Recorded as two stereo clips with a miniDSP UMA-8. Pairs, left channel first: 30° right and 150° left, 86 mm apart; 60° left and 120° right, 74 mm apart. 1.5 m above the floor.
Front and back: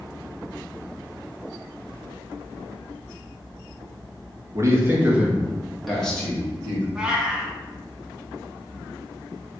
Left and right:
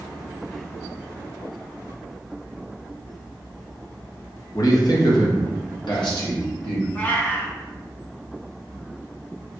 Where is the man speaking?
100° left, 1.0 m; by 6.8 s 45° left, 1.9 m.